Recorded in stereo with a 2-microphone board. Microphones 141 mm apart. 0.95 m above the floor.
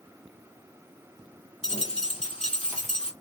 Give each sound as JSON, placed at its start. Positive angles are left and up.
{"t": 1.6, "sound": "a dropped coin", "side_deg": 50, "distance_m": 1.2}